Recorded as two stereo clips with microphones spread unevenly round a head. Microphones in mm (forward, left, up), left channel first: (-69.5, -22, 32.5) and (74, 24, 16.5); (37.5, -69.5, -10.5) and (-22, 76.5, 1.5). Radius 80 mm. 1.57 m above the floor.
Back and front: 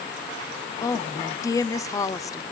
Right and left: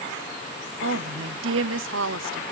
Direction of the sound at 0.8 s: 125° left.